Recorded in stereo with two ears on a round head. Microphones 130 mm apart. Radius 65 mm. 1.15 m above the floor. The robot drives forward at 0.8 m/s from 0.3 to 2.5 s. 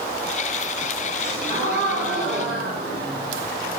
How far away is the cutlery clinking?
I don't hear cutlery clinking.